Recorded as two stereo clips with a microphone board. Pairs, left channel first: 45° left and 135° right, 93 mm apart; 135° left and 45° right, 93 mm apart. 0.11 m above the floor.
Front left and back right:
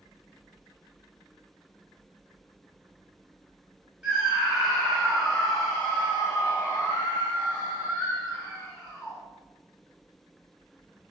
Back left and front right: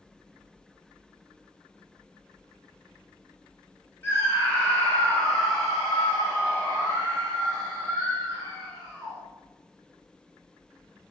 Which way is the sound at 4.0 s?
155° left.